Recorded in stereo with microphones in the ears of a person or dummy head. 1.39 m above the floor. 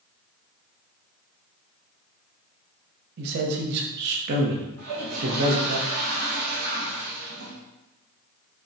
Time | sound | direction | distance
3.2 | a man speaking | 65° right (ahead or behind) | 0.9 m
4.8 | a toilet flushing | 45° right (ahead or behind) | 0.6 m